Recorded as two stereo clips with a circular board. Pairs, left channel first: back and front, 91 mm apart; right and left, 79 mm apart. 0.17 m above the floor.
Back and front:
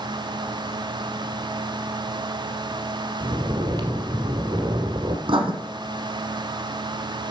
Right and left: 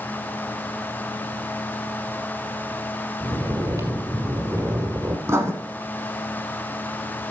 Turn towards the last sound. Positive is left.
turn(degrees=35)